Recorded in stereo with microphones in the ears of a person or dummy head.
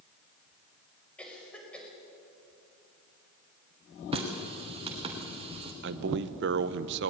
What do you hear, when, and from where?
1.2 s a cough: 10° left (ahead or behind), 5.5 m
4.1 s a running tap: 30° right (ahead or behind), 3 m
5.8 s a man speaking: 55° right (ahead or behind), 0.7 m